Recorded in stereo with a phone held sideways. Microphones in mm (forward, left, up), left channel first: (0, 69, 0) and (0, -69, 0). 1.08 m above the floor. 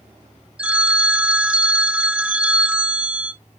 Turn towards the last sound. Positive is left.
turn(degrees=-10)  # may be behind; listen again after turning